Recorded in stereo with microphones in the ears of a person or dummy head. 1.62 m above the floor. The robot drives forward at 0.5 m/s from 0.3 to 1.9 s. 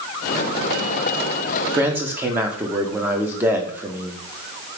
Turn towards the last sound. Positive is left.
turn(degrees=-10)  # may be behind; listen again after turning